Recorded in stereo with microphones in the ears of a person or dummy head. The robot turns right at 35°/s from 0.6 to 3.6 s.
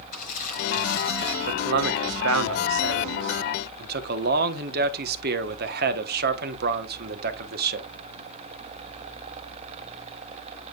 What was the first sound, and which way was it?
Crumpling, 45° left (ahead or behind).